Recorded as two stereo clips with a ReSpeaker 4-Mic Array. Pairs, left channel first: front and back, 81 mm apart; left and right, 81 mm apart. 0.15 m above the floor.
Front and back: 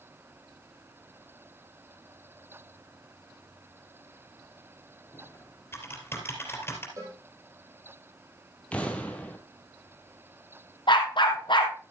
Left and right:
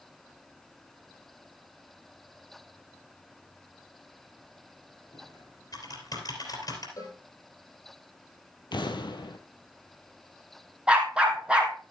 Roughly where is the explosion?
Left.